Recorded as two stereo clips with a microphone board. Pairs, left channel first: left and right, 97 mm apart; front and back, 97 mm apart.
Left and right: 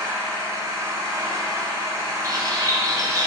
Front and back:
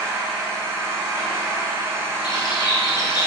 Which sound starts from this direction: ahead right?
A bird, at 2.2 s.